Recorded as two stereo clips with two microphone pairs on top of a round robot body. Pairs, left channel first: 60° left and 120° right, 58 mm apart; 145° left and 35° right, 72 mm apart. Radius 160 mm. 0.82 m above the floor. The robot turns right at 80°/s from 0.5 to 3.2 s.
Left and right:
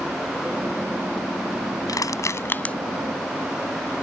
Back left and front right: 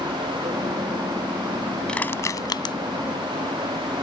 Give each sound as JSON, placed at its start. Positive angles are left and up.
{"t": 1.9, "sound": "crushing", "azimuth_deg": 65}